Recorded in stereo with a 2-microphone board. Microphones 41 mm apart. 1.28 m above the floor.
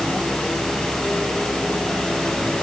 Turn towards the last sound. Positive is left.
No sound to turn to.